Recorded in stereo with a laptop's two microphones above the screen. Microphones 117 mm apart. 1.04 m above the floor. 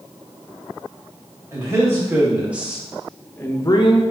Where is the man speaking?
25° right (ahead or behind), 1.6 m; by 4.0 s 55° left (ahead or behind), 0.6 m.